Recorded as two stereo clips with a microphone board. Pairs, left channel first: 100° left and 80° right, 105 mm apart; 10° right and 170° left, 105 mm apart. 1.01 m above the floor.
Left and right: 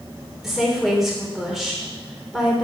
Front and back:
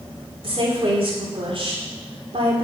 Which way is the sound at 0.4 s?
165° right.